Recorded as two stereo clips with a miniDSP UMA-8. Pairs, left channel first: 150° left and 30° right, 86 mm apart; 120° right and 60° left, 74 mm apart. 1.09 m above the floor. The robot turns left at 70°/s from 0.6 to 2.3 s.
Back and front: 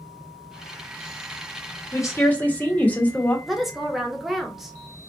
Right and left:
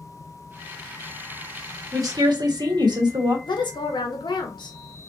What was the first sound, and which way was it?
A woman speaking, 105° left.